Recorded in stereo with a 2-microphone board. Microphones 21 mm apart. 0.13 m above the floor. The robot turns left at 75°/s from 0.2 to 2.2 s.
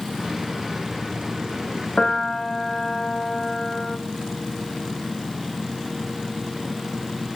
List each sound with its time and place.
2.0 s a piano: 40° left (ahead or behind), 1.3 m; by 4.0 s 25° left (ahead or behind), 1.3 m